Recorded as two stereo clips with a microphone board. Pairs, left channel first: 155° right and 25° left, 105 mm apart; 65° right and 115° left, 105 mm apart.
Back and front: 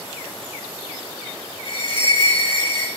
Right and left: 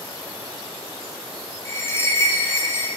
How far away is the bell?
About 6 m.